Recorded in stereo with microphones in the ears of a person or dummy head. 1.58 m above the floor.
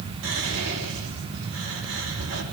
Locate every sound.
0.2 s whispering: 90° right, 4 m